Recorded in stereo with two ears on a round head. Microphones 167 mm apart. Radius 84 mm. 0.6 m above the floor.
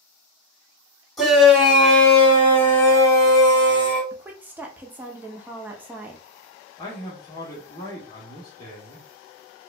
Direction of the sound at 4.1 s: 10° right (ahead or behind).